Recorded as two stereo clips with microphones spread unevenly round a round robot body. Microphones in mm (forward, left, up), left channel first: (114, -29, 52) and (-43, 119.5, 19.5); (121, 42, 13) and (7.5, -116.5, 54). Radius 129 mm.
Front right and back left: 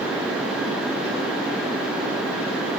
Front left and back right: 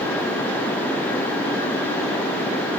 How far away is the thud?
I don't hear a thud.